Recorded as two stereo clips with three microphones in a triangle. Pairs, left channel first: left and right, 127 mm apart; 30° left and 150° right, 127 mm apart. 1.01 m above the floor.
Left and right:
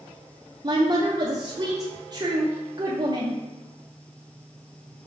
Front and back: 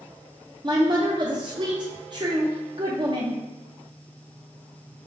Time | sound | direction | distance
0.6 | a woman speaking | 130° right | 0.5 m